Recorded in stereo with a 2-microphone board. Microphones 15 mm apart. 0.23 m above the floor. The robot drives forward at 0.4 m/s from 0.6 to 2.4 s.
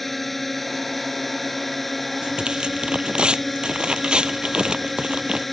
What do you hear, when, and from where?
0.0 s a drone: 10° left (ahead or behind)
2.2 s tearing paper: 75° right (ahead or behind)